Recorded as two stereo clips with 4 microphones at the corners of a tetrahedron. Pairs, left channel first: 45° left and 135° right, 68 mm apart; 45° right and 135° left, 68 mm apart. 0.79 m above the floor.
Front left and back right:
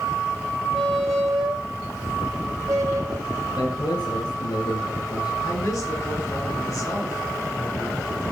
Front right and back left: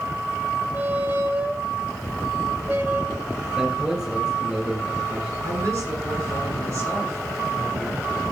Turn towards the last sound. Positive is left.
turn(degrees=90)